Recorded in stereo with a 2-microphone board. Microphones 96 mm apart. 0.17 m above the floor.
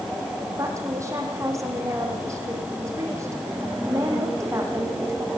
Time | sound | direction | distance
0.6 | a woman speaking | 30° right (ahead or behind) | 8 m